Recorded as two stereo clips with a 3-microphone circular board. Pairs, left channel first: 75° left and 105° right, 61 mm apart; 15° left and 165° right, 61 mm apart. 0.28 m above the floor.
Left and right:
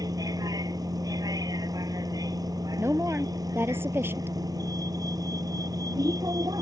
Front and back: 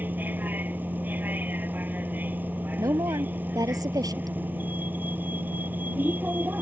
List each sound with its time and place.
0.0 s a vehicle: 105° right
2.8 s a woman speaking: 155° right